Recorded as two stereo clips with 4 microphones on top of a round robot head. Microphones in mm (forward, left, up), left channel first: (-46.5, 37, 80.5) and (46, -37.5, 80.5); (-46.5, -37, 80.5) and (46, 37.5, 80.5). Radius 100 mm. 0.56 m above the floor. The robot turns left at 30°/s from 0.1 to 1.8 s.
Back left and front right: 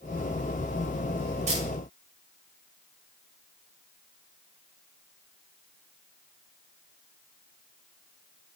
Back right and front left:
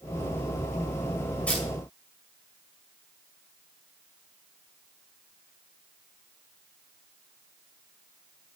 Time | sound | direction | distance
1.5 | a camera shutter | 60° right | 5.5 m